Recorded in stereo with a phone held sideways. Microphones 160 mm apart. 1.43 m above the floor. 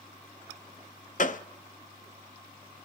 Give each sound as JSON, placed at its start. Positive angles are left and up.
{"t": 1.2, "sound": "a gunshot", "side_deg": 55, "distance_m": 0.6}